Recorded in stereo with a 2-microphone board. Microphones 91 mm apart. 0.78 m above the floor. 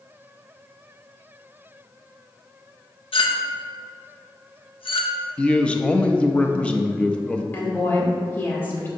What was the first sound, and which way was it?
A clink, 75° left (ahead or behind).